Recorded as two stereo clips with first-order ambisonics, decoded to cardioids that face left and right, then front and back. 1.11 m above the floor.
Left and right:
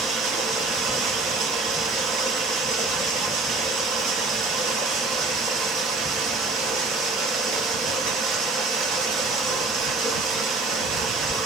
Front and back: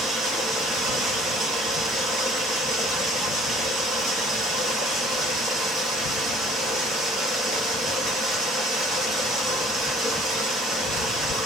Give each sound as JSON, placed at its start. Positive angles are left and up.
{"t": 0.0, "sound": "running water", "azimuth_deg": -120, "distance_m": 1.5}